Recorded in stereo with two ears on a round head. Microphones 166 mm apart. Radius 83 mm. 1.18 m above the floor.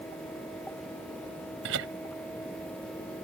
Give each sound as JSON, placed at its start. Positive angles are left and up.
{"t": 1.6, "sound": "laughter", "side_deg": -75}